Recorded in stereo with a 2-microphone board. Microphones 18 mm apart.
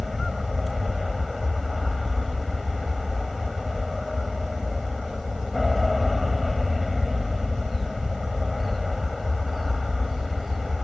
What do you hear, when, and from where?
0.0 s an aircraft: 5° right (ahead or behind)